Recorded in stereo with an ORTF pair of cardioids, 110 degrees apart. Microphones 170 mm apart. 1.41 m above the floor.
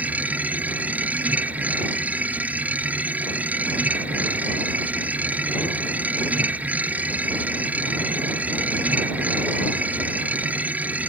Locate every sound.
0.0 s a machine running: 10° right